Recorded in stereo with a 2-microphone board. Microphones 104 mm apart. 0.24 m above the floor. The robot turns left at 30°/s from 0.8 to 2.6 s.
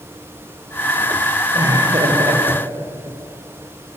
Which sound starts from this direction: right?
Laughter, at 1.6 s.